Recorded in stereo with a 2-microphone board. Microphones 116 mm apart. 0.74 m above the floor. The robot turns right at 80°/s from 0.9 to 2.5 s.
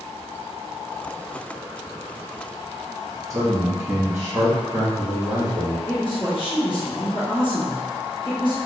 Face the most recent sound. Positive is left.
turn(degrees=45)  # may be behind; listen again after turning